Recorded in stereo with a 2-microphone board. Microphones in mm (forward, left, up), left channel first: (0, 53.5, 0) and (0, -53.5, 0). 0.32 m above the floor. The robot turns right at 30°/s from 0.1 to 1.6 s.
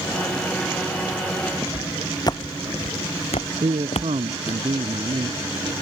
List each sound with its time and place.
1.6 s footsteps: 20° left (ahead or behind); by 4.6 s 65° left (ahead or behind)
3.6 s a man speaking: 70° right (ahead or behind)